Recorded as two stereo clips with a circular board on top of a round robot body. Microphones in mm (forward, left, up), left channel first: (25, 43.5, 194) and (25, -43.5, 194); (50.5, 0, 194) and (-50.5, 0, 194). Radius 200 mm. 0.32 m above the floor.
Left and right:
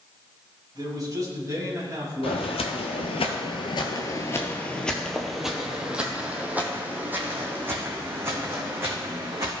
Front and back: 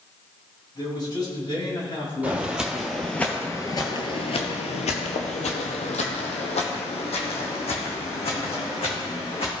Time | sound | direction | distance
0.8 | a man speaking | 45° right | 4 m
2.2 | footsteps | 100° left | 1.1 m